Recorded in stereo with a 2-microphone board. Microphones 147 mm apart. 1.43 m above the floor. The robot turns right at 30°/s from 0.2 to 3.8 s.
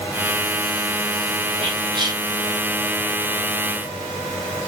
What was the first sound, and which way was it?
Whispering, 40° right (ahead or behind).